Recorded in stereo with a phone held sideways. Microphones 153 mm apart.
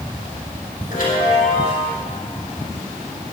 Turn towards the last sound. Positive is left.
turn(degrees=70)  # may be behind; listen again after turning